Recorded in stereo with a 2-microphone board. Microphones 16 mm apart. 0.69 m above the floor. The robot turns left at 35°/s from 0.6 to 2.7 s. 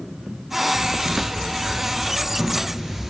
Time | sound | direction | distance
0.7 | a thud | 80° right | 1.5 m